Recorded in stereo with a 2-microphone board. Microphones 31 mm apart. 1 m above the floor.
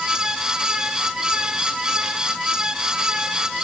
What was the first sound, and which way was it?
Only background noise.